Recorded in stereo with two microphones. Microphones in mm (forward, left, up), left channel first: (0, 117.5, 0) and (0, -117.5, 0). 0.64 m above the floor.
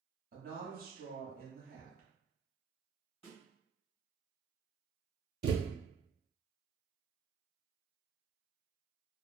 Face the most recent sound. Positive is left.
turn(degrees=-45)  # may be behind; listen again after turning